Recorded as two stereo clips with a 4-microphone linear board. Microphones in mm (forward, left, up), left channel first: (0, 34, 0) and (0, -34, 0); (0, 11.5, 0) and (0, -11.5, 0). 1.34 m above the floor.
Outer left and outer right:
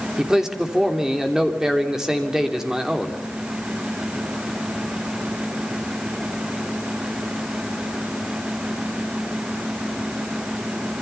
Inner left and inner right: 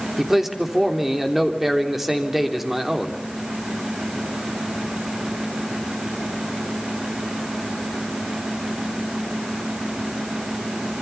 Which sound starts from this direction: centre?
A man speaking, at 0.2 s.